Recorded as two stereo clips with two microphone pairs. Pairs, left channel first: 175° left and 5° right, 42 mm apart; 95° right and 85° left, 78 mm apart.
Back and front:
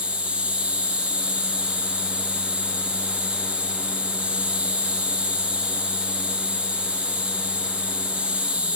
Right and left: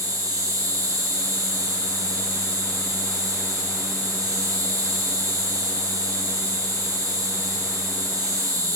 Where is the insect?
50° left, 5 m.